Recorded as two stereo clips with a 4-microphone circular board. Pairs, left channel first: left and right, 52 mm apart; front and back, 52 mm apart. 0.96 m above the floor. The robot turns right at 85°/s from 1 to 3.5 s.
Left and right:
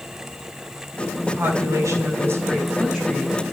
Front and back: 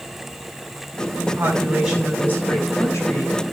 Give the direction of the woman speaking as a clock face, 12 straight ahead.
5 o'clock.